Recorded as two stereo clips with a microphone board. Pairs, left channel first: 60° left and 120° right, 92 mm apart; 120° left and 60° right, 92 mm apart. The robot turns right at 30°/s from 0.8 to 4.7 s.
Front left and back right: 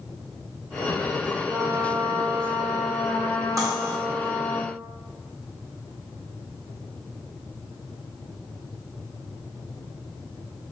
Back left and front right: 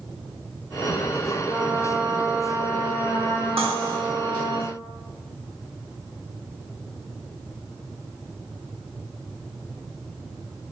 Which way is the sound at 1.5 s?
150° right.